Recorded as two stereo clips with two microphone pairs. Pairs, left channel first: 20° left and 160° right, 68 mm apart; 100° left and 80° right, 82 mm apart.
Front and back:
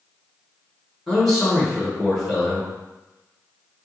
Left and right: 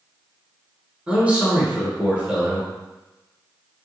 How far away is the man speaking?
About 1.1 m.